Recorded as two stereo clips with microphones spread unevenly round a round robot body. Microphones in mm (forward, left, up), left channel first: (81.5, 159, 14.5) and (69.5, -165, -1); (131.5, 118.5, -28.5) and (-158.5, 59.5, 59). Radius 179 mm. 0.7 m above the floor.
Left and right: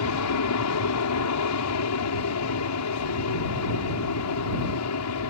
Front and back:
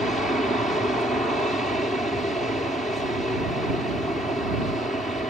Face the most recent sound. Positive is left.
turn(degrees=85)